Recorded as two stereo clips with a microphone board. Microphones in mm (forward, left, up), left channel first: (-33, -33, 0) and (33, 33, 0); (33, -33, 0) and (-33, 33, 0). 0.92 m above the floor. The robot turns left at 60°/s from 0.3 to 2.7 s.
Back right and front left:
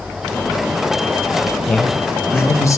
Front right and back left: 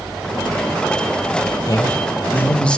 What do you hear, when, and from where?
1.7 s a man speaking: 55° right, 0.7 m; by 2.8 s 115° right, 0.7 m